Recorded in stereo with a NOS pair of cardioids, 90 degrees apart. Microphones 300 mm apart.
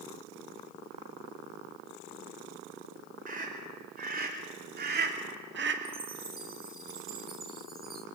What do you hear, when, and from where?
3.3 s a scream: 30° right, 4.5 m; by 5.8 s 40° right, 1.9 m
5.8 s a chime: 30° right, 1.6 m